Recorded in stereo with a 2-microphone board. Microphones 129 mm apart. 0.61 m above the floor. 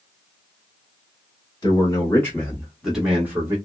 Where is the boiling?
No boiling in this recording.